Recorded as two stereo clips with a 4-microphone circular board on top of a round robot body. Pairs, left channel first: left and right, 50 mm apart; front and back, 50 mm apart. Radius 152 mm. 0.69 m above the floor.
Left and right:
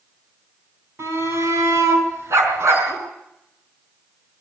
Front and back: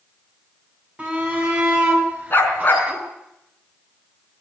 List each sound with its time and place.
1.0 s a shout: 115° right, 8 m; by 3.0 s 120° right, 7.5 m
2.3 s a dog barking: 55° right, 4 m